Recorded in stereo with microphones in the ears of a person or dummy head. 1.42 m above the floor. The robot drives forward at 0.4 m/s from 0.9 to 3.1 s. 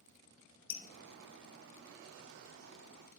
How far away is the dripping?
About 1.0 m.